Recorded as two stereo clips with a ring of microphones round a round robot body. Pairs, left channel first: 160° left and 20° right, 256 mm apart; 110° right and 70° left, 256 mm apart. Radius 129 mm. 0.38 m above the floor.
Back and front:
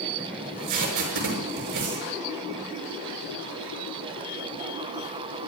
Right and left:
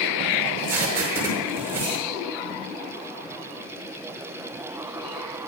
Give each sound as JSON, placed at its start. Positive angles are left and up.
{"t": 0.4, "sound": "tape being pulled", "azimuth_deg": -15, "distance_m": 5.5}